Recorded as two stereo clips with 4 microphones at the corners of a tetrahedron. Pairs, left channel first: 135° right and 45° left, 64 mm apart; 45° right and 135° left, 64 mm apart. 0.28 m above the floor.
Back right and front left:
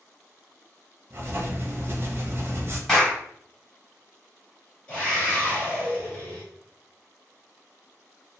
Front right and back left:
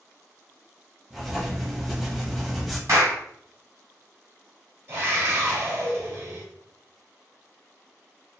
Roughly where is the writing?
Ahead left.